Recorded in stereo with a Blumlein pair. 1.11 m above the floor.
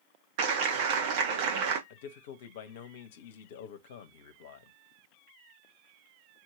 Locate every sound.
0.4 s a clap: 45° right, 1.4 m
1.9 s a man speaking: 55° left, 1.2 m